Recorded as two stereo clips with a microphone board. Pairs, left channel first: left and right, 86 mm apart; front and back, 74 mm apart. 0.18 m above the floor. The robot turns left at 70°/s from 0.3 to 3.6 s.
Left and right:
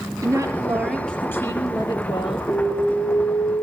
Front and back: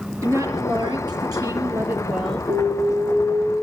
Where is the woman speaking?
135° right, 3.5 m; by 2.4 s 80° left, 3.5 m.